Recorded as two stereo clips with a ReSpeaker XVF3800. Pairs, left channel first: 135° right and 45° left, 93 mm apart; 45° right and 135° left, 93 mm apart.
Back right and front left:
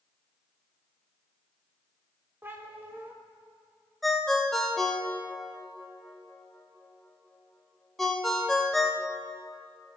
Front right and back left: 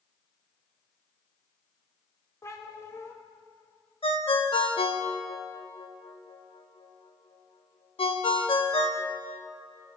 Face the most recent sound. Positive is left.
turn(degrees=-45)